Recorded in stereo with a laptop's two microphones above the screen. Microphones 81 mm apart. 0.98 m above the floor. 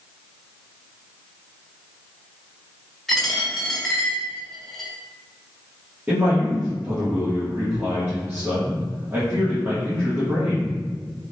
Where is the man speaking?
25° right (ahead or behind), 1.3 m.